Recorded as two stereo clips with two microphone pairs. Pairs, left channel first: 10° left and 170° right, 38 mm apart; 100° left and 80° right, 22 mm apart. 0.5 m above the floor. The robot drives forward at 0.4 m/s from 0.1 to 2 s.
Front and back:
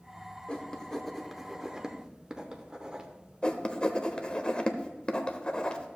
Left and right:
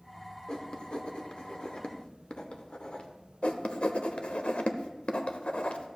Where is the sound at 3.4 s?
75° left, 0.7 m.